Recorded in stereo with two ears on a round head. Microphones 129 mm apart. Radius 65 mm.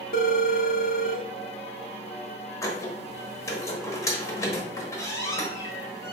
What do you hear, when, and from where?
0.1 s a phone ringing: 60° left (ahead or behind), 0.6 m
2.6 s a squeak: 20° left (ahead or behind), 1.1 m